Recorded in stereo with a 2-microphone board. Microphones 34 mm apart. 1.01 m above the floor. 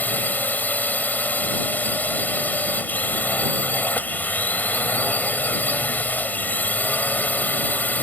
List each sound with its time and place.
0.0 s a drone: 60° left (ahead or behind)